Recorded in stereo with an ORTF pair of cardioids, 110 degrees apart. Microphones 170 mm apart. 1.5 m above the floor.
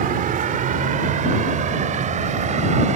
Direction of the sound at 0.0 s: 55° right.